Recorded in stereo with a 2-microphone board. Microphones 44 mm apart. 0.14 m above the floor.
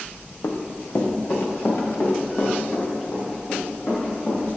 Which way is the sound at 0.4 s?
80° left.